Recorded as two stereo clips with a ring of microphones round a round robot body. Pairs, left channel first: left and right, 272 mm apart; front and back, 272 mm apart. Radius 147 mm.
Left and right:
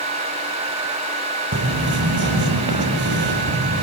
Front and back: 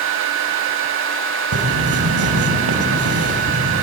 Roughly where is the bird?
Behind right.